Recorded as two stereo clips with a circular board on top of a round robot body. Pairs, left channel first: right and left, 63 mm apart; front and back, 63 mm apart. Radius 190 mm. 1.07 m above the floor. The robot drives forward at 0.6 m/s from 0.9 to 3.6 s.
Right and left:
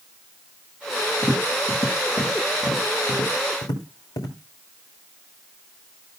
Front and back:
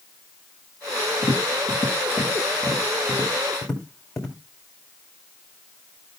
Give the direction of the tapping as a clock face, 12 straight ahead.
1 o'clock.